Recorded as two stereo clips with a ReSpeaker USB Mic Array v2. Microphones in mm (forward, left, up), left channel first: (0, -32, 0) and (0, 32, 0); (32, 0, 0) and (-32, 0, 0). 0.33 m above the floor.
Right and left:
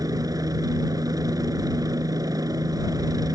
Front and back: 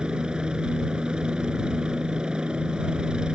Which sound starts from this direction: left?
A helicopter, at 0.0 s.